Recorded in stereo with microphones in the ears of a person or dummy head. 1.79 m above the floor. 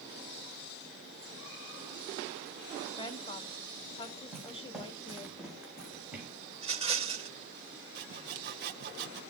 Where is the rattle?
30° right (ahead or behind), 4 m.